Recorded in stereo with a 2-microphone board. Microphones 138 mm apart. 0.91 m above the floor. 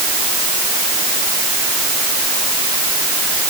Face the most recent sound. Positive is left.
No sound to turn to.